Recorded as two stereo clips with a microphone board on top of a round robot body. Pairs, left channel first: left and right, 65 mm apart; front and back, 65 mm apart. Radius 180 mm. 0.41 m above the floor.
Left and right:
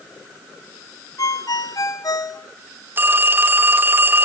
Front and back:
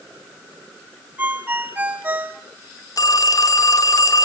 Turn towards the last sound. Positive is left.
turn(degrees=-30)